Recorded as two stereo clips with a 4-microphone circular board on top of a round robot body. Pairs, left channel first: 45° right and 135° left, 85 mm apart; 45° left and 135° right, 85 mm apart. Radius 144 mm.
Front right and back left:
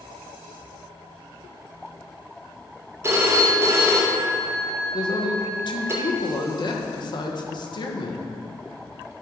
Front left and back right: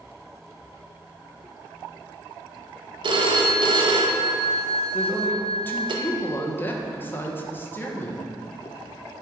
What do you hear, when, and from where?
3.0 s a phone ringing: 165° right, 1.0 m
4.9 s a woman speaking: 20° right, 1.6 m